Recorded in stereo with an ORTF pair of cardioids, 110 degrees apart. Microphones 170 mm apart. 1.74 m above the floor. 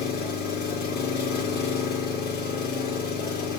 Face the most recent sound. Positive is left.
turn(degrees=70)